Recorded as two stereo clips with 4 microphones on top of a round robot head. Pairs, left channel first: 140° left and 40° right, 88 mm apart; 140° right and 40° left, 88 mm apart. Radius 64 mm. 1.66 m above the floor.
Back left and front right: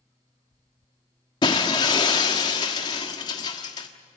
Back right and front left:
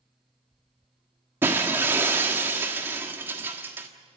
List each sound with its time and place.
1.4 s breaking glass: 100° left, 1.4 m